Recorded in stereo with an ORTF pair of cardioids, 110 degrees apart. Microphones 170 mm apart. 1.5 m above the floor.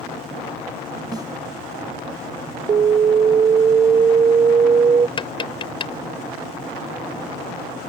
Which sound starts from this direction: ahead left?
Tapping, at 5.2 s.